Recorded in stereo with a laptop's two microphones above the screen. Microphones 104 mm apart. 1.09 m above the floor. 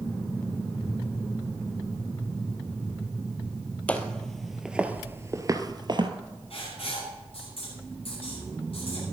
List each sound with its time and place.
3.9 s footsteps: 10° left (ahead or behind), 1.8 m; by 6.1 s 50° right (ahead or behind), 1.6 m
6.5 s writing: 65° left (ahead or behind), 9.5 m